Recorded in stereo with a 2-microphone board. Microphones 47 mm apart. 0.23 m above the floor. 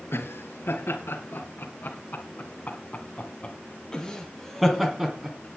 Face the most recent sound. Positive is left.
turn(degrees=-15)  # may be behind; listen again after turning